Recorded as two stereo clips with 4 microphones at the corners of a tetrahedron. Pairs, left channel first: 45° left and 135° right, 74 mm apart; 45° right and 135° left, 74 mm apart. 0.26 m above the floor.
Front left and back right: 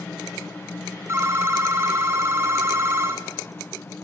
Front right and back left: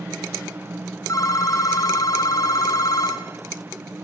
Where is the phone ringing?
80° right, 2 m.